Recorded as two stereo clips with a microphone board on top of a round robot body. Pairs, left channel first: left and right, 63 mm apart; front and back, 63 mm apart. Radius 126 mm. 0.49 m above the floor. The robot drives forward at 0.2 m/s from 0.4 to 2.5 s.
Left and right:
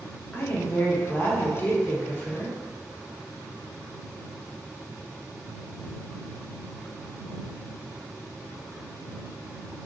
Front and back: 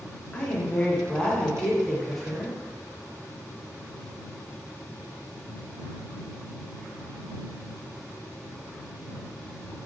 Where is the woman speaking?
55° left, 1.0 m; by 2.5 s 95° left, 0.9 m.